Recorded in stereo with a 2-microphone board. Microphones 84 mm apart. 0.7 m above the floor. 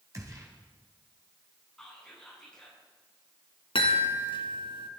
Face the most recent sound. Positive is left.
turn(degrees=75)  # may be behind; listen again after turning